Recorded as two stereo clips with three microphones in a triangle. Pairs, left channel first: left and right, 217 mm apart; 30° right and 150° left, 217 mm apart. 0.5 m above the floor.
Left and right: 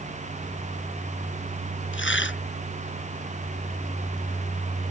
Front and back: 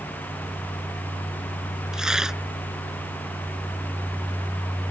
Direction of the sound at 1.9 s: 65° left.